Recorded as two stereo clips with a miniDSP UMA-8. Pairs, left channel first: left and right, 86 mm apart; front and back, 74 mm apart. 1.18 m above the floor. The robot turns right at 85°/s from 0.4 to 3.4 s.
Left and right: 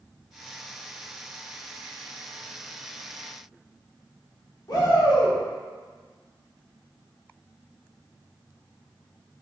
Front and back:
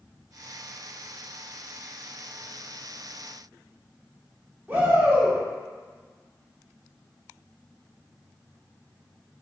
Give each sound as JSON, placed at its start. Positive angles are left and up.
{"t": 4.7, "sound": "a shout", "azimuth_deg": 120, "distance_m": 1.0}